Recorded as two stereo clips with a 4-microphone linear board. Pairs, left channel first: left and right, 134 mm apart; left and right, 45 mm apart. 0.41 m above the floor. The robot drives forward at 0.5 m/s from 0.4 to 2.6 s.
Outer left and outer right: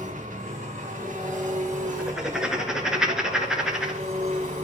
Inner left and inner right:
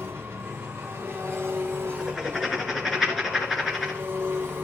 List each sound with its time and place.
0.0 s an engine running: 70° right (ahead or behind), 2.5 m; by 4.7 s 60° right (ahead or behind), 2.5 m
2.0 s writing: 5° right (ahead or behind), 2.5 m